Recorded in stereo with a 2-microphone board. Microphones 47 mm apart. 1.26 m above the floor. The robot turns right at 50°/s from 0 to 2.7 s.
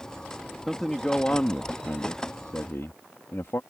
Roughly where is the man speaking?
Ahead.